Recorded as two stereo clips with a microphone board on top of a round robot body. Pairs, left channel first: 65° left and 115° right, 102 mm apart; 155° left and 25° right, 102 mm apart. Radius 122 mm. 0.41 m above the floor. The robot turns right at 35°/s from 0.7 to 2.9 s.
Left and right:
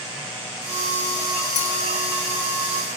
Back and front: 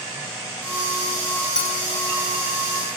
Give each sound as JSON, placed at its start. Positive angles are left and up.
{"t": 1.6, "sound": "a clink", "azimuth_deg": 75, "distance_m": 7.0}